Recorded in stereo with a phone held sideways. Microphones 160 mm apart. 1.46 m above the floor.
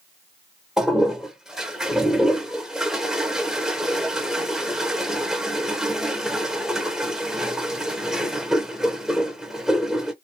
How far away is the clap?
I don't hear a clap.